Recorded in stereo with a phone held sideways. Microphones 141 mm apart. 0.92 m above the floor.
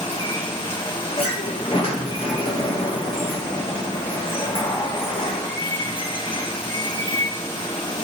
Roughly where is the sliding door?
Left.